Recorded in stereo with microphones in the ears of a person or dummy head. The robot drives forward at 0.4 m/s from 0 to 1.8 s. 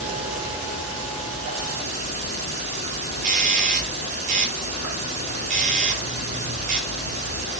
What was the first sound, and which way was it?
An insect, 70° right (ahead or behind).